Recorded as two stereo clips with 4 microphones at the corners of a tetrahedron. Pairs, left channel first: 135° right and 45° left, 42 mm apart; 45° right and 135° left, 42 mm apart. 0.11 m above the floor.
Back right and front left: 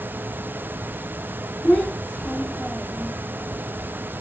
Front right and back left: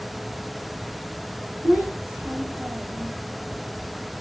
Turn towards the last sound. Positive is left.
turn(degrees=-175)